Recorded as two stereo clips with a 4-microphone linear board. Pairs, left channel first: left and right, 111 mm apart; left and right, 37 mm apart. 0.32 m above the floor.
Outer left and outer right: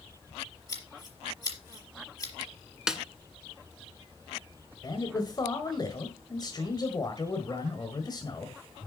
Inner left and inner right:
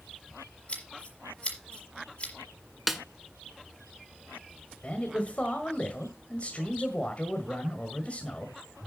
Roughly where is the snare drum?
Centre.